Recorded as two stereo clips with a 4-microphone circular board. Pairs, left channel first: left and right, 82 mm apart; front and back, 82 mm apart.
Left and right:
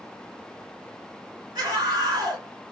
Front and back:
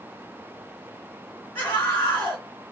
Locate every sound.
1.6 s a scream: 50° right, 3 m